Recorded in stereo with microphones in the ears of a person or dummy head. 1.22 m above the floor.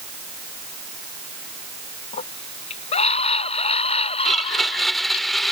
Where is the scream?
35° left (ahead or behind); by 5.2 s 30° left (ahead or behind).